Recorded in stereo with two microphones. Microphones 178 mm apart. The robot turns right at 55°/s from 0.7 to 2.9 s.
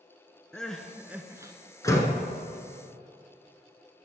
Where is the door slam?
20° left (ahead or behind), 0.9 m; by 2.2 s 10° left (ahead or behind), 0.9 m.